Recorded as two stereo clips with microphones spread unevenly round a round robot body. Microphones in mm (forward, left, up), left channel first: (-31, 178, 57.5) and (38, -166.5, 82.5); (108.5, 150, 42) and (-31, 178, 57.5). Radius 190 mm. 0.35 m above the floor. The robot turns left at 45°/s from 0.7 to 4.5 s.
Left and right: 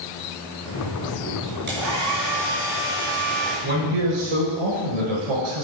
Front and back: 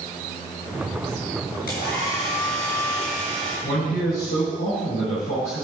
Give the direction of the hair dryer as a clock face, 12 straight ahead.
12 o'clock.